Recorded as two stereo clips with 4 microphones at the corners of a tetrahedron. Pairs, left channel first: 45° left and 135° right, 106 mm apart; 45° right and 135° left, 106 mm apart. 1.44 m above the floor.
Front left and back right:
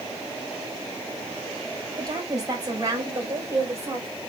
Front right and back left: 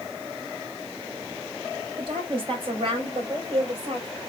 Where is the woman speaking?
175° left, 5.5 m; by 4.1 s 160° left, 6 m.